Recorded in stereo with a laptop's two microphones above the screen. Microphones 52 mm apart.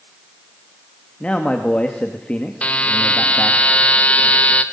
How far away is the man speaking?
About 1.8 m.